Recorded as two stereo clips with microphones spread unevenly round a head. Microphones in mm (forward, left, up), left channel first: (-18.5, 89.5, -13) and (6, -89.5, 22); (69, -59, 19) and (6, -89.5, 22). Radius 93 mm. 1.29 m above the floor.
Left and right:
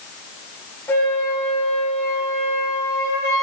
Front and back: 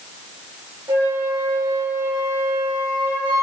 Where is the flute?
Straight behind, 3.5 m.